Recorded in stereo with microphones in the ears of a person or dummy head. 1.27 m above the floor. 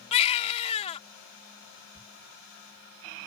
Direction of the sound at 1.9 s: 5° right (ahead or behind).